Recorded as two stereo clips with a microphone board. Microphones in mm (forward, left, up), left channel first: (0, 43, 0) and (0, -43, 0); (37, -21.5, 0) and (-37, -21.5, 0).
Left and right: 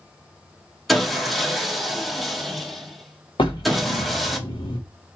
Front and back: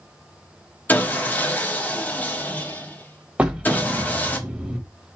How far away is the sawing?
About 0.9 m.